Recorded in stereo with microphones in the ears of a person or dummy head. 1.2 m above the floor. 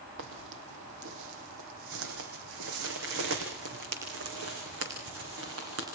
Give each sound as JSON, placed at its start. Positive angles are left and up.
{"t": 0.2, "sound": "footsteps", "side_deg": -65, "distance_m": 2.5}